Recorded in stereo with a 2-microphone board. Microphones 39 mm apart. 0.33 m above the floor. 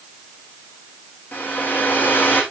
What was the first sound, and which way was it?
A hair dryer, 50° left (ahead or behind).